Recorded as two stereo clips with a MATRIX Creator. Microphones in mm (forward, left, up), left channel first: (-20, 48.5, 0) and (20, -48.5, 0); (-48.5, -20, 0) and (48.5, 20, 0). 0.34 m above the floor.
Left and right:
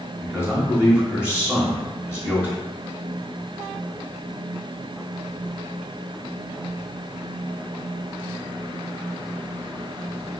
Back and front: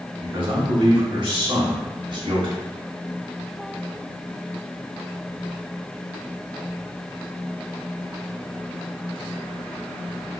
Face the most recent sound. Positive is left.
turn(degrees=5)